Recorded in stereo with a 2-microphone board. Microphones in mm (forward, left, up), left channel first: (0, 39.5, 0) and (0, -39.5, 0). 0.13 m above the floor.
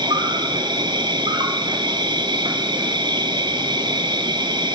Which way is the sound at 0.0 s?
65° right (ahead or behind).